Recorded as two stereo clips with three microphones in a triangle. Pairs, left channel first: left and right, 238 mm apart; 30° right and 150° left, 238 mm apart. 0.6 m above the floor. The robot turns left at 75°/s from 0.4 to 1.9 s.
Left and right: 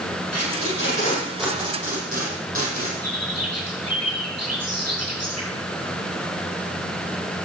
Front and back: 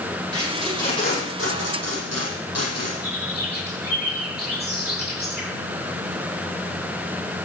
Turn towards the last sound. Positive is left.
turn(degrees=-80)